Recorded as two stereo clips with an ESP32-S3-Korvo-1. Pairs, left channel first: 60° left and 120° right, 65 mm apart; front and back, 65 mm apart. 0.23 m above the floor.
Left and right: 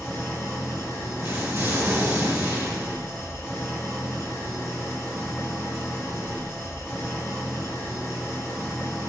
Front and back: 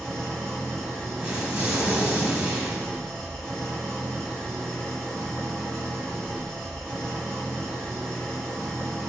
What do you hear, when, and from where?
0.0 s an engine running: 75° left, 0.9 m
1.2 s an explosion: 115° right, 0.9 m